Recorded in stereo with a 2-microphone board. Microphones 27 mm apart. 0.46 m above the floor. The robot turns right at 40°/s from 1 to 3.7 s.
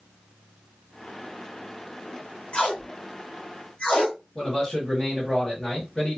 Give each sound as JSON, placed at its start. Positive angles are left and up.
{"t": 2.5, "sound": "tape being pulled", "side_deg": 55, "distance_m": 1.5}
{"t": 4.3, "sound": "a man speaking", "side_deg": 20, "distance_m": 3.0}